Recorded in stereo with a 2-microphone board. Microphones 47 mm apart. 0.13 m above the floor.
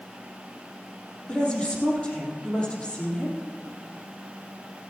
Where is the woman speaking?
25° left (ahead or behind), 4 m.